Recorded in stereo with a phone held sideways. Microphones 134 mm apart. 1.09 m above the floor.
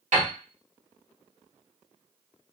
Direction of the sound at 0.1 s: 80° right.